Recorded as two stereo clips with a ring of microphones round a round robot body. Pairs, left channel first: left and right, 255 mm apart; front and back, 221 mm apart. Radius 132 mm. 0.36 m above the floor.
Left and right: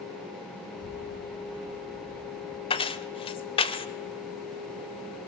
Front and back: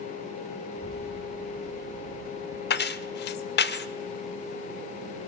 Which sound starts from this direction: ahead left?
Keys jangling, at 2.7 s.